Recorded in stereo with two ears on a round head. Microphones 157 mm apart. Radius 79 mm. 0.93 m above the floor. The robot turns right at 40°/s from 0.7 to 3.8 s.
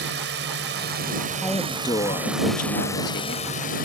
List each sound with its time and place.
0.0 s a drone: 70° right; by 3.9 s 55° left
1.4 s a woman speaking: 5° left; by 3.5 s 90° left